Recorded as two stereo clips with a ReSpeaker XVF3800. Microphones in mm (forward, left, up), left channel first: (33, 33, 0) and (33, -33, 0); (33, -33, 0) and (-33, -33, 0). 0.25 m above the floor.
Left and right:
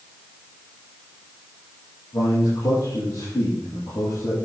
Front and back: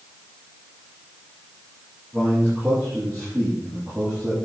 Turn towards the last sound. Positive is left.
turn(degrees=95)